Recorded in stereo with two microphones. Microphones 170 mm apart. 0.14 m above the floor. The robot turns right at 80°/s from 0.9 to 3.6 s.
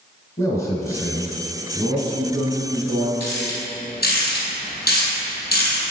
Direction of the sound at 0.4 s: 15° left (ahead or behind).